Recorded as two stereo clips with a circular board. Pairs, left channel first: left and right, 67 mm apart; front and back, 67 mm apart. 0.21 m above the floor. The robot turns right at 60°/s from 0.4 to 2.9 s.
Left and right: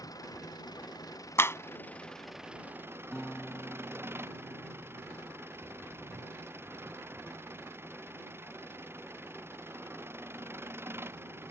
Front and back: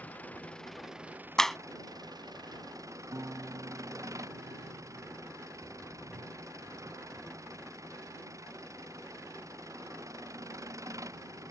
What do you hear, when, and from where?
0.0 s an engine running: 65° left; by 11.5 s 145° right
1.4 s a clap: 75° left; by 1.6 s 90° left
3.1 s a guitar: 175° left